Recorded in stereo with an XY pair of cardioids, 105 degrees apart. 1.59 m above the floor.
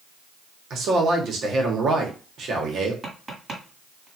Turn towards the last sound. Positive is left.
turn(degrees=-20)